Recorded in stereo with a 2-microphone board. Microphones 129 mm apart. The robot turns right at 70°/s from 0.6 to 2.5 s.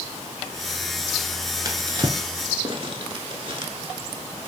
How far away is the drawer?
About 0.6 m.